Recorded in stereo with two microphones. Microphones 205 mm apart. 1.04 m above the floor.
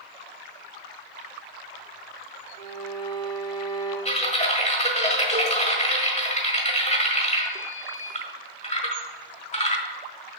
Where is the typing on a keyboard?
35° left (ahead or behind), 1.4 m.